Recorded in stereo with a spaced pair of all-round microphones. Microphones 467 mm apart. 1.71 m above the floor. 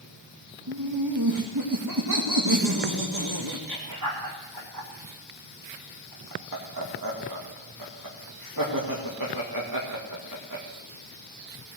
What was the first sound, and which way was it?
Laughter, 45° right (ahead or behind).